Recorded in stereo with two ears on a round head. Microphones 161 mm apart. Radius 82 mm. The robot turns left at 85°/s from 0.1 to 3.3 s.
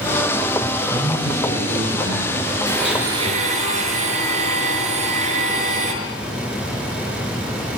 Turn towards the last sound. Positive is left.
turn(degrees=-40)